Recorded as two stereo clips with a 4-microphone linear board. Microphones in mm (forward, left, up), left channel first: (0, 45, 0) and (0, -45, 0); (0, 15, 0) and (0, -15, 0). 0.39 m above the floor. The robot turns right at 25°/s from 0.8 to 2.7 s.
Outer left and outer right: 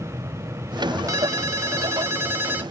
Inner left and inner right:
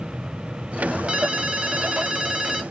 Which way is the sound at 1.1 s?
75° right.